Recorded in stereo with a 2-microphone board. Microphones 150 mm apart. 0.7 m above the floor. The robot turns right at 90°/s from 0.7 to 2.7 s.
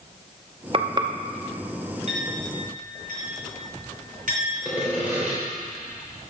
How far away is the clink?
About 3.5 m.